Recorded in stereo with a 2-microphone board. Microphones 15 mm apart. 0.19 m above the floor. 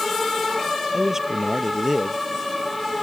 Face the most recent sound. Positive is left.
turn(degrees=-30)  # may be behind; listen again after turning